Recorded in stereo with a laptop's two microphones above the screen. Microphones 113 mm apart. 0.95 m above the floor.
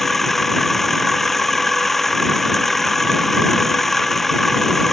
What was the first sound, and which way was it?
A machine running, centre (ahead or behind).